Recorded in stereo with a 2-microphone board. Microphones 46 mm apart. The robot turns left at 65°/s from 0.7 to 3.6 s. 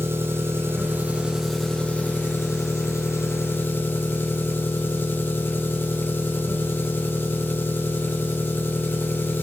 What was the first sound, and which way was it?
An engine running, 125° right.